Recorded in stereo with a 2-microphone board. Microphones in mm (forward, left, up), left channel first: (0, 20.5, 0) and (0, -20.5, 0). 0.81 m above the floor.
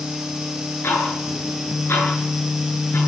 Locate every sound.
0.8 s ticking: 75° left (ahead or behind), 9.5 m